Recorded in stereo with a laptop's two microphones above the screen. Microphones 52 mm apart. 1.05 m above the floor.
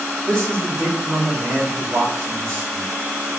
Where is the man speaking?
45° right (ahead or behind), 2.5 m.